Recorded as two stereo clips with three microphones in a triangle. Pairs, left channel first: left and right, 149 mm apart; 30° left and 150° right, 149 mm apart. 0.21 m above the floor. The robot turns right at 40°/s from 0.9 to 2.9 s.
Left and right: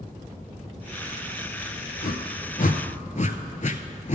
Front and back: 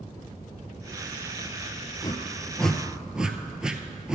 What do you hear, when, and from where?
2.0 s a whoosh: 90° left, 0.6 m; by 4.2 s 125° left, 0.6 m